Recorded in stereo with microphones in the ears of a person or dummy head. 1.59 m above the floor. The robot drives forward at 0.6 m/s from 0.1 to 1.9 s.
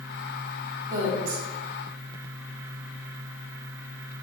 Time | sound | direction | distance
0.9 | a woman speaking | 20° right (ahead or behind) | 1.8 m